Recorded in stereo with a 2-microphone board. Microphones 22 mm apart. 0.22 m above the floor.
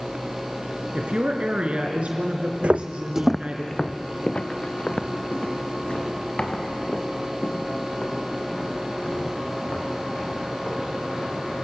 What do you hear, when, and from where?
0.9 s a woman speaking: 65° right (ahead or behind), 3 m
2.6 s footsteps: 70° right (ahead or behind), 0.6 m; by 11.3 s 55° left (ahead or behind), 8 m